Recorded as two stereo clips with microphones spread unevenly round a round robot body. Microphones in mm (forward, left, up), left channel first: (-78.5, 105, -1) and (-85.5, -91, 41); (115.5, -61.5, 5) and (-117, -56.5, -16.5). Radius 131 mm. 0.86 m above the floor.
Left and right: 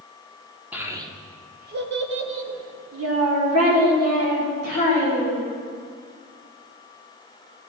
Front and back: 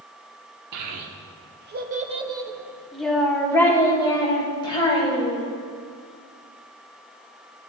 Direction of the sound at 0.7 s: 175° right.